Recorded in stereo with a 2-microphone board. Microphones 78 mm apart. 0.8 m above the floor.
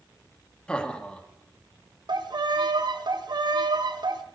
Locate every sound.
0.7 s laughter: 10° left (ahead or behind), 1.0 m
2.1 s a violin: 65° right (ahead or behind), 0.7 m